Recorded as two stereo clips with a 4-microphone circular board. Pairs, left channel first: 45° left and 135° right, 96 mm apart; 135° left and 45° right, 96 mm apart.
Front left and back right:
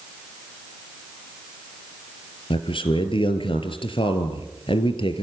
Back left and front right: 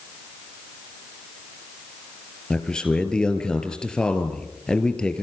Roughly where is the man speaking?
Ahead left.